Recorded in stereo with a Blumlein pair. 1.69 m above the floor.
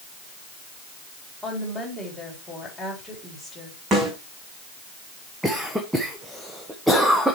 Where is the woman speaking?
Straight ahead, 4 m.